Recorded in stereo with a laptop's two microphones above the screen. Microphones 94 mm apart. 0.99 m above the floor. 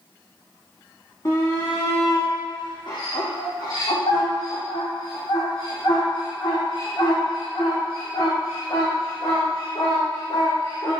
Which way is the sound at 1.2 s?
40° left (ahead or behind).